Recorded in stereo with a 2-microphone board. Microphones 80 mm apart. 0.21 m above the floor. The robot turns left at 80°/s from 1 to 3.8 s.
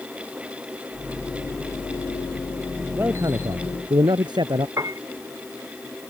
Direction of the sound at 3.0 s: 25° right.